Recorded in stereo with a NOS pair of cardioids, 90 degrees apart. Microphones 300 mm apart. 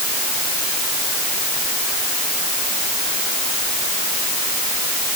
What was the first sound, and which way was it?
Only background noise.